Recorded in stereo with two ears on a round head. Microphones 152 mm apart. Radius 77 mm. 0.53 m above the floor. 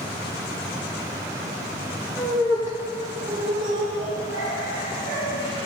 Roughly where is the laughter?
Centre.